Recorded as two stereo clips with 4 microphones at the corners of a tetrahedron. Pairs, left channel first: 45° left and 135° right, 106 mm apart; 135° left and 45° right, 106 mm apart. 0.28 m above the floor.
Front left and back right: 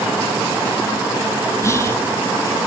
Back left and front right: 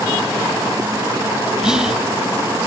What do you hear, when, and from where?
1.6 s whispering: 30° left, 1.0 m